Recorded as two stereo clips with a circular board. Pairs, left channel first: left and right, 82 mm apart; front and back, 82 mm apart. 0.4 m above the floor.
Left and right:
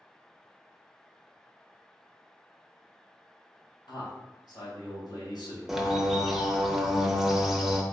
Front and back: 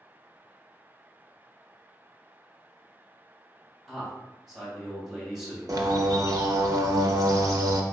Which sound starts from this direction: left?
A man speaking, at 3.9 s.